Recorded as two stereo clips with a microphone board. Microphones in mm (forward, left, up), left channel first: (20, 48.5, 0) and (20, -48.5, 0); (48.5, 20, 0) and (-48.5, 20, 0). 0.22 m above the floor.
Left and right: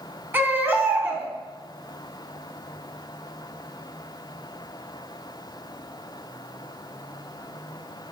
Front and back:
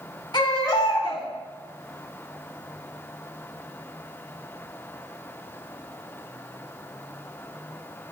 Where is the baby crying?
25° right, 0.7 m.